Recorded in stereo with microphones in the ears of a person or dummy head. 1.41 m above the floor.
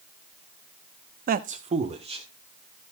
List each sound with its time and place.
1.3 s a man speaking: 45° right (ahead or behind), 0.5 m; by 2.9 s 30° right (ahead or behind), 3 m